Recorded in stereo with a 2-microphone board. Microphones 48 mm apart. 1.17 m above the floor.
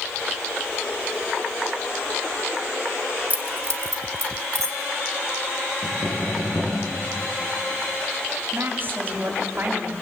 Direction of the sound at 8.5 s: 45° right (ahead or behind).